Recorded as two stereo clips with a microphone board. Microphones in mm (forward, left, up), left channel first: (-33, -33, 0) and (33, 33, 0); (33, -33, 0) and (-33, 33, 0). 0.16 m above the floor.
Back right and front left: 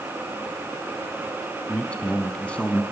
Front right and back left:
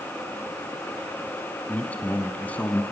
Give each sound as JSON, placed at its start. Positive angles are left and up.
{"t": 1.7, "sound": "a man speaking", "azimuth_deg": -85, "distance_m": 1.1}